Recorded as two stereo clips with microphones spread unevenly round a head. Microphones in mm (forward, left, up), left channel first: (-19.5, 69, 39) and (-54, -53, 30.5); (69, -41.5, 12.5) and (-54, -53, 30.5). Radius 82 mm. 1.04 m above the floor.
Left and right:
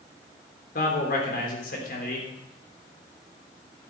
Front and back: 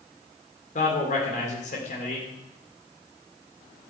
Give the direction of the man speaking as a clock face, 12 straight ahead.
10 o'clock.